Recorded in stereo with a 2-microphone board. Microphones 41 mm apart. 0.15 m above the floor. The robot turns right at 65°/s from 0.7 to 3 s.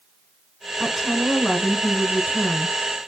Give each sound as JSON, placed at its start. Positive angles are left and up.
{"t": 0.8, "sound": "a woman speaking", "side_deg": -10, "distance_m": 1.0}